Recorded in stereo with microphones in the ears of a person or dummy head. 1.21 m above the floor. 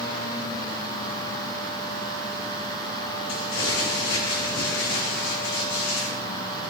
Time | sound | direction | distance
3.3 | crumpling | 70° left (ahead or behind) | 2.5 m